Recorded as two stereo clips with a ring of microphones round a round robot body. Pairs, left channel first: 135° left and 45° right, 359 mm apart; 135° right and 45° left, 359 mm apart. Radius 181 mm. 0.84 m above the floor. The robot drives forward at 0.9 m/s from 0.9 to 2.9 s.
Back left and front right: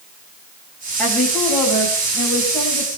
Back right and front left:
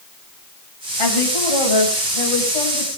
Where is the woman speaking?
140° right, 5 m; by 3.0 s 150° right, 6 m.